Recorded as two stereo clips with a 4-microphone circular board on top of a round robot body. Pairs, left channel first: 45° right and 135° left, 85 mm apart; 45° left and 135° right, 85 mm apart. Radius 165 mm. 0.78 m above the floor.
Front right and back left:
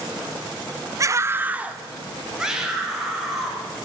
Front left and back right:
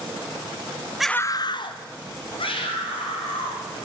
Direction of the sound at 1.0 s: 145° left.